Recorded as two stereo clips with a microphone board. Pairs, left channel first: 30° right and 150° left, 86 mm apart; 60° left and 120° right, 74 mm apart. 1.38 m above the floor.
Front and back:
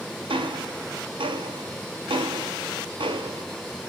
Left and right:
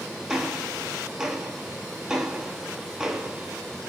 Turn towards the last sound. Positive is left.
turn(degrees=155)